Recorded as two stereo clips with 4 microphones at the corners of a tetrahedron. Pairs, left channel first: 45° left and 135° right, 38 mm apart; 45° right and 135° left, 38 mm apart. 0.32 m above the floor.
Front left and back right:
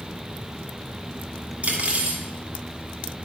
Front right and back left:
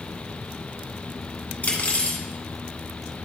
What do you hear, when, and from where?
1.6 s cutlery clinking: 85° right, 1.6 m